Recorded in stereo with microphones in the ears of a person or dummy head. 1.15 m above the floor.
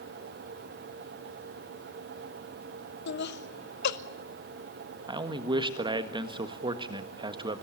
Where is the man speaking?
25° right (ahead or behind), 1.5 m.